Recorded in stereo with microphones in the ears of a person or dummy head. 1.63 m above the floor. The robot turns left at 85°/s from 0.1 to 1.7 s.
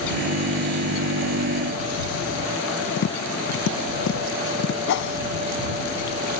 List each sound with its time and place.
3.0 s tapping: 80° left
4.9 s a whoosh: 75° left (ahead or behind)